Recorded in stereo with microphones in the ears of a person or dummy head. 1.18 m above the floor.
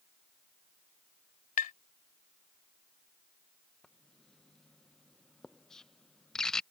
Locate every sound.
1.6 s tapping: 45° left (ahead or behind)
3.8 s writing: 5° left (ahead or behind)